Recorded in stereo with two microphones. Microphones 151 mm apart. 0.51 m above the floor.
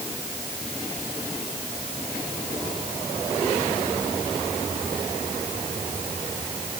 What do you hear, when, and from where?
Only background noise.